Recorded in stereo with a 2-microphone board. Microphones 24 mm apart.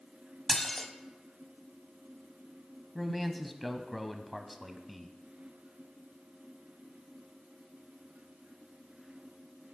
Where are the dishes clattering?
20° left (ahead or behind), 0.9 m.